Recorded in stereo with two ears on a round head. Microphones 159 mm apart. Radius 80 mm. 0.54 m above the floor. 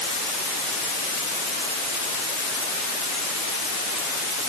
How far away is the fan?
No fan in this recording.